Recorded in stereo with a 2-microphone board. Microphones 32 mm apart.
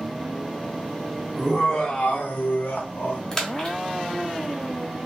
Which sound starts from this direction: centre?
A splash, at 3.3 s.